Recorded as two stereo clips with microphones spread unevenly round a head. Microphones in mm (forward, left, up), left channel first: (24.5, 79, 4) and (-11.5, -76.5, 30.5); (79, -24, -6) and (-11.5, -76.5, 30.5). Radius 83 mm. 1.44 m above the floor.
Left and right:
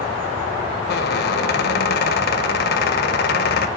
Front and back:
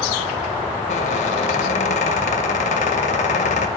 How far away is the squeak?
About 0.6 m.